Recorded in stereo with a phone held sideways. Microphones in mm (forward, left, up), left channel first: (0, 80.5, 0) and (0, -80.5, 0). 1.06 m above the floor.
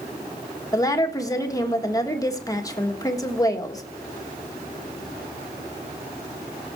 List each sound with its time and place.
0.7 s a woman speaking: 20° left (ahead or behind), 1.5 m